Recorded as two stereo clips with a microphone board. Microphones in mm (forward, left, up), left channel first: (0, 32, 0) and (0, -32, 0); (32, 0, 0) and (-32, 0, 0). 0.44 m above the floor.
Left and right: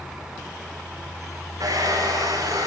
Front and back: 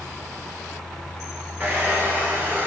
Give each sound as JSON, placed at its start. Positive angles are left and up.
{"t": 1.6, "sound": "a hair dryer", "azimuth_deg": -120, "distance_m": 9.5}